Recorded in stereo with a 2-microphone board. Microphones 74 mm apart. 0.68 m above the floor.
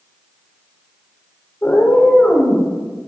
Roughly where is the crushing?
No crushing in this recording.